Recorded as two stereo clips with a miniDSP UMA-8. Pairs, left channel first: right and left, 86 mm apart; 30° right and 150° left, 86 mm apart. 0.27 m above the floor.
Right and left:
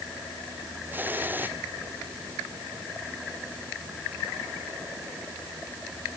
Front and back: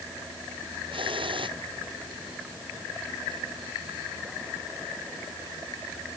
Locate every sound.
0.9 s a hiss: 155° left